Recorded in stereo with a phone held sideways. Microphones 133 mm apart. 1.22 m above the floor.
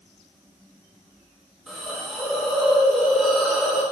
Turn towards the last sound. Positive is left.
turn(degrees=-5)  # may be behind; listen again after turning